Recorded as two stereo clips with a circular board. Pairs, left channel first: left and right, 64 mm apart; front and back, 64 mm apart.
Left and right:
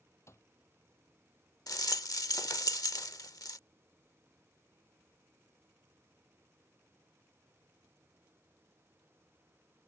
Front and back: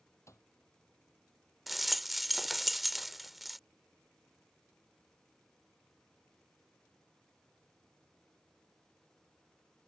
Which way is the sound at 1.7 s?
90° left.